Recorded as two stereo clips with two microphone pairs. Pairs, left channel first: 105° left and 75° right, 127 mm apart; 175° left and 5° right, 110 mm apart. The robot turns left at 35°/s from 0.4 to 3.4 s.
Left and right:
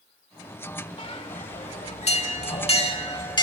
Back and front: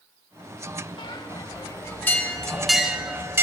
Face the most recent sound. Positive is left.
turn(degrees=55)